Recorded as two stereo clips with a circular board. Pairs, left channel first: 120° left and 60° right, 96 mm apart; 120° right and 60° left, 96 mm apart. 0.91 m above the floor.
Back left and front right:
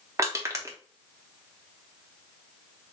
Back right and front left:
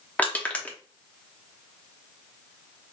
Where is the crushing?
60° right, 1.0 m.